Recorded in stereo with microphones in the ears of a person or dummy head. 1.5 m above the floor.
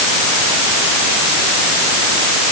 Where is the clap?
I don't hear a clap.